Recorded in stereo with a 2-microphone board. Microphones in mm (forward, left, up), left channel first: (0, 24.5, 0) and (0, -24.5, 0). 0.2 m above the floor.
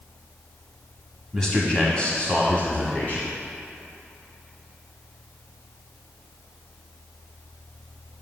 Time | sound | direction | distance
1.3 | a man speaking | 10° left (ahead or behind) | 1.5 m